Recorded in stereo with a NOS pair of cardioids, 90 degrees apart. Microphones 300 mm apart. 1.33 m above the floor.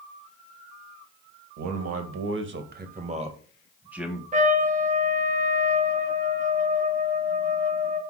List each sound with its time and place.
1.6 s a man speaking: 65° right, 1.6 m; by 4.2 s straight ahead, 1.9 m
4.3 s a trumpet: 25° right, 1.1 m